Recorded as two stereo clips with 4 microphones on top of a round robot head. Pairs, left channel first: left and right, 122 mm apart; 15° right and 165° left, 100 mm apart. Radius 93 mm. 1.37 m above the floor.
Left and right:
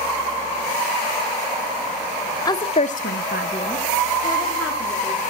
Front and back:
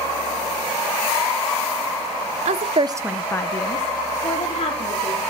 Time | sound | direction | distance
2.5 | a woman speaking | 150° left | 0.9 m